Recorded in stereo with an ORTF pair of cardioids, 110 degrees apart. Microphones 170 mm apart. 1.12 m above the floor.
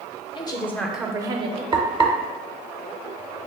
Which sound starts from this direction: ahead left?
A woman speaking, at 0.3 s.